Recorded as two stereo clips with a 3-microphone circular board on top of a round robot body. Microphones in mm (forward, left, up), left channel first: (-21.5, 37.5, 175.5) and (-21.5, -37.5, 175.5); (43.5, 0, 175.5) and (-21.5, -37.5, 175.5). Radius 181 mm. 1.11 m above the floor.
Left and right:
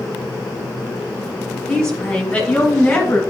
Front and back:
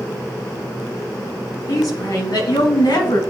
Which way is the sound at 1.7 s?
10° left.